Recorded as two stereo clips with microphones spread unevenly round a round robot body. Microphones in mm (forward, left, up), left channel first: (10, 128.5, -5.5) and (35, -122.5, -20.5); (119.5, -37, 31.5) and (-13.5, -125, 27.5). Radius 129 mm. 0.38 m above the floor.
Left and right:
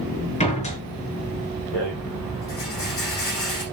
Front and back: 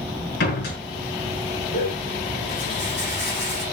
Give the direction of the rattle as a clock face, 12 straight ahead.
10 o'clock.